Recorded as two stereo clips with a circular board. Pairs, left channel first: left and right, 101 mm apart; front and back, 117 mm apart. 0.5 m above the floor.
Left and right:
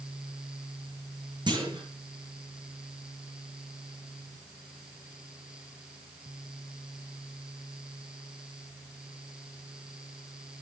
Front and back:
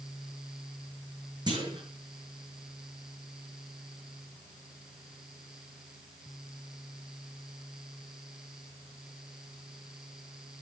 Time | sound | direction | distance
1.5 | a clunk | 130° right | 5.5 m